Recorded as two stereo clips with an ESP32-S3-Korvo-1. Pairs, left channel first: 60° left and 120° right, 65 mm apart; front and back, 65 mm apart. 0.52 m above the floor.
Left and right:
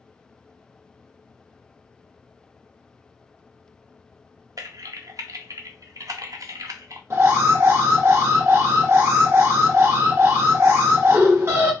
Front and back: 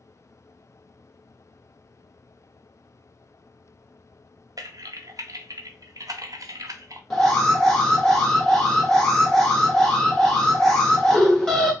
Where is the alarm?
80° right, 1.3 m.